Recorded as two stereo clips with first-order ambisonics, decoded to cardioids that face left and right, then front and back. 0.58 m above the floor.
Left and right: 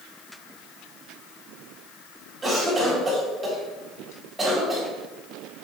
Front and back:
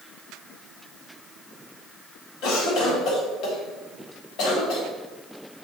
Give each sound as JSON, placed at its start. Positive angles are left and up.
{"t": 2.4, "sound": "a cough", "azimuth_deg": -15, "distance_m": 1.5}